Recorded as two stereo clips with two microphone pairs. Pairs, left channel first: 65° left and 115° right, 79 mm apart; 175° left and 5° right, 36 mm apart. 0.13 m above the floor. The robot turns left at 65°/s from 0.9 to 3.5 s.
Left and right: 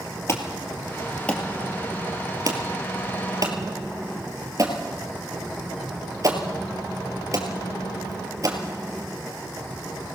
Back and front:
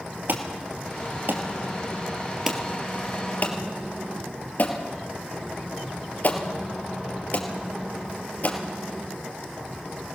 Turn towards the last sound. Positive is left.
turn(degrees=-155)